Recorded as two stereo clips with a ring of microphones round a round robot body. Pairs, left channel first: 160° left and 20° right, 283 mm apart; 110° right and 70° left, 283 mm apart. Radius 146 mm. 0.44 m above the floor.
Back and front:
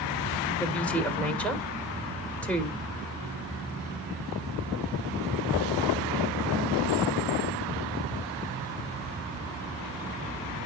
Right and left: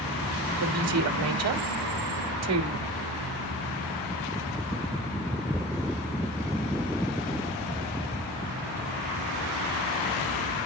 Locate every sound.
0.6 s a woman speaking: 75° left, 1.5 m